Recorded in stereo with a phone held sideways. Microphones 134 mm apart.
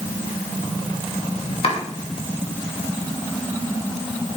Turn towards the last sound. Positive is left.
turn(degrees=45)  # may be behind; listen again after turning